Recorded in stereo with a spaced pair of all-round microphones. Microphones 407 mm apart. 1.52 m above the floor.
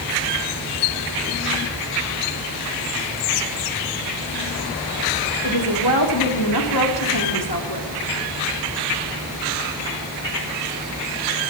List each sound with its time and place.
5.4 s a woman speaking: 70° left (ahead or behind), 4.5 m